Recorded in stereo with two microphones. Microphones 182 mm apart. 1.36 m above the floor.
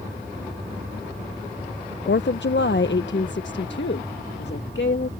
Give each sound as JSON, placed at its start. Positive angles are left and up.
{"t": 2.1, "sound": "a woman speaking", "side_deg": 75}